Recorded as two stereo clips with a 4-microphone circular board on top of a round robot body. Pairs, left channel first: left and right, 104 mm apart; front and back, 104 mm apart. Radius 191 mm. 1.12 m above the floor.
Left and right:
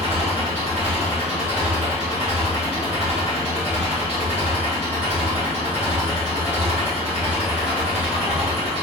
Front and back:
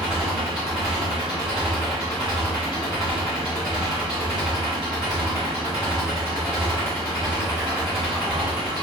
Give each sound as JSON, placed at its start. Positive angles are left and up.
{"t": 0.0, "sound": "an engine running", "azimuth_deg": -95, "distance_m": 1.5}